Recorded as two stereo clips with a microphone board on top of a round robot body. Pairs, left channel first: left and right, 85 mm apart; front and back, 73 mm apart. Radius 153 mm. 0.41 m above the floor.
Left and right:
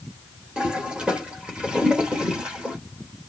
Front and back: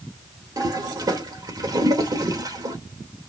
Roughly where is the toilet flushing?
Behind.